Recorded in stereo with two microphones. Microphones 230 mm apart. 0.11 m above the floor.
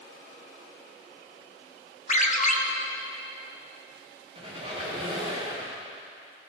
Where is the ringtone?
35° left (ahead or behind), 1.1 m.